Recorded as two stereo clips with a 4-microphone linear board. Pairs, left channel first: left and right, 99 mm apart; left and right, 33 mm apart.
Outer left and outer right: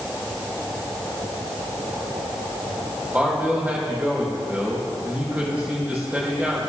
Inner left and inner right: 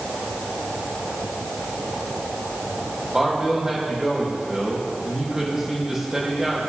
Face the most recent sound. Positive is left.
turn(degrees=-15)  # may be behind; listen again after turning